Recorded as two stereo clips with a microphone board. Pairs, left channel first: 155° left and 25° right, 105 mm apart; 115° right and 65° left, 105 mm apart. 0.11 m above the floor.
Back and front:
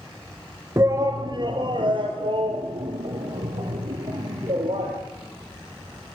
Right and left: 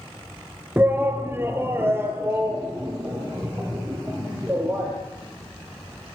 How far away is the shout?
About 1.3 m.